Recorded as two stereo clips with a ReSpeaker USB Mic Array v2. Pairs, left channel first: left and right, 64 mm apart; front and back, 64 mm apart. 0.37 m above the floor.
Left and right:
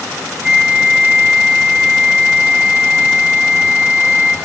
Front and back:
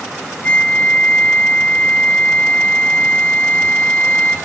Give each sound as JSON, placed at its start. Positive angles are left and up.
{"t": 0.4, "sound": "a flute", "azimuth_deg": -35, "distance_m": 1.5}